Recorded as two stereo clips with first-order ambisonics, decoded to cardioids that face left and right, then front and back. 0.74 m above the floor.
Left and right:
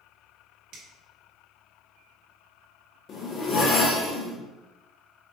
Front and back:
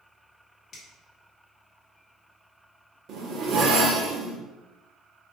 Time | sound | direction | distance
0.7 | a finger snap | 60° right | 1.4 m
3.1 | a zipper | 145° left | 0.8 m